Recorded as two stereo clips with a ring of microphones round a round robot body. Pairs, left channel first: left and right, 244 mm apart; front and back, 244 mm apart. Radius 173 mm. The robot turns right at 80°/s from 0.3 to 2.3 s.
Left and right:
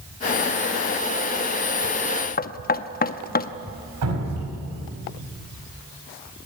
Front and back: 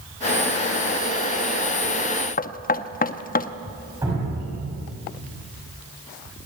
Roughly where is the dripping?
Right.